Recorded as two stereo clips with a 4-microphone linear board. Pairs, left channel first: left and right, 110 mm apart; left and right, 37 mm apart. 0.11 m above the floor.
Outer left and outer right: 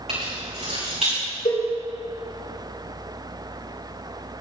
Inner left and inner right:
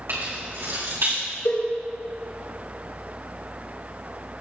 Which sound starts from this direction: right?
Keys jangling, at 0.1 s.